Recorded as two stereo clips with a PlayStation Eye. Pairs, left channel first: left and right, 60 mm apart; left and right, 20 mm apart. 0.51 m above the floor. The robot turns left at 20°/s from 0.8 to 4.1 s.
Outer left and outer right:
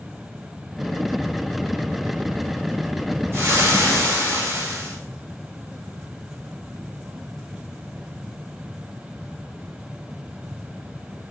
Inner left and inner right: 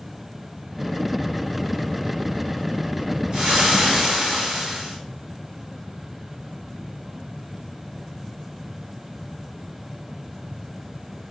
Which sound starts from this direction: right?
Frying, at 3.3 s.